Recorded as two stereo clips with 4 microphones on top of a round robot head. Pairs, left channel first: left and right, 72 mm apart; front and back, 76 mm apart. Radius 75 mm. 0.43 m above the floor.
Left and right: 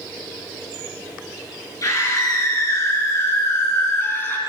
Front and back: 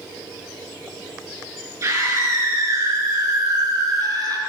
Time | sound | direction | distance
1.8 | a scream | 130° left | 6.5 m